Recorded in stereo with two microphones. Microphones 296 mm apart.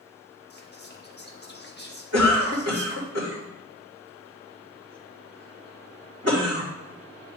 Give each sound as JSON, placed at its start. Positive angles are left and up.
{"t": 0.5, "sound": "whispering", "side_deg": 35, "distance_m": 1.1}
{"t": 2.1, "sound": "a cough", "side_deg": -55, "distance_m": 2.5}